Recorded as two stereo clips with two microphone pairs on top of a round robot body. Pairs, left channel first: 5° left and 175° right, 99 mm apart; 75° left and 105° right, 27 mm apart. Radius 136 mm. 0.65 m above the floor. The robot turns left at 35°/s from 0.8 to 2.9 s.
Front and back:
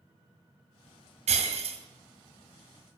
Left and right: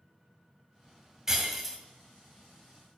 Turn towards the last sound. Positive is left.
turn(degrees=125)